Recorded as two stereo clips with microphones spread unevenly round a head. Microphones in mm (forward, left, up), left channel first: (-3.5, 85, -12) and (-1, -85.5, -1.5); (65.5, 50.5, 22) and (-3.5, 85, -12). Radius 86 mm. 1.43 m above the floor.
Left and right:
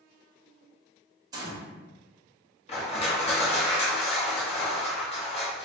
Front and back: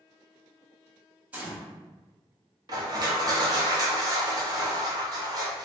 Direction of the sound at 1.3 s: 95° right.